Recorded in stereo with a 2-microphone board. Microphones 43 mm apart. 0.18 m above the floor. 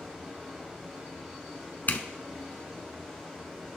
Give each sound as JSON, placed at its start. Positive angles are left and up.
{"t": 0.0, "sound": "running water", "side_deg": -15, "distance_m": 5.0}
{"t": 1.9, "sound": "a zipper", "side_deg": 45, "distance_m": 1.0}